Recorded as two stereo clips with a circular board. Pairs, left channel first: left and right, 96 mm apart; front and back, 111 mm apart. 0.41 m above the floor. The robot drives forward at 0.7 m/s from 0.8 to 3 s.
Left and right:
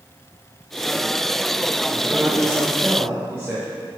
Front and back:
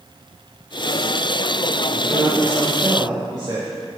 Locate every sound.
1.9 s a man speaking: 125° right, 1.5 m; by 3.7 s 150° right, 1.8 m